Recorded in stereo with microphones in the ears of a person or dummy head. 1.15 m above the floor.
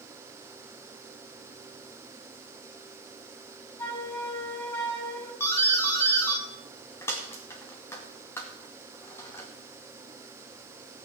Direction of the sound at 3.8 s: 20° left (ahead or behind).